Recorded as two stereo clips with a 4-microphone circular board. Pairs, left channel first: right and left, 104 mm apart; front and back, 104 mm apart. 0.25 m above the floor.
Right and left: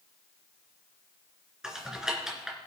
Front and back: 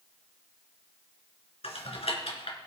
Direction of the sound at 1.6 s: 5° left.